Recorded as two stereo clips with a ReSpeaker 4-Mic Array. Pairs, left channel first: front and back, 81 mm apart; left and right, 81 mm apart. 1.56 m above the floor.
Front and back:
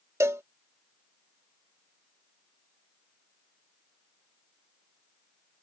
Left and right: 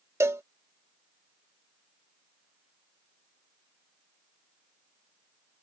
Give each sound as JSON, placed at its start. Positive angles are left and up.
{"t": 0.2, "sound": "a cowbell", "azimuth_deg": -135}